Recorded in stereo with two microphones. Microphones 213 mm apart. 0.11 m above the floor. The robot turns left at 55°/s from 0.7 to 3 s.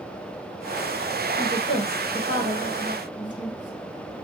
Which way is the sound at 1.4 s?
20° left (ahead or behind).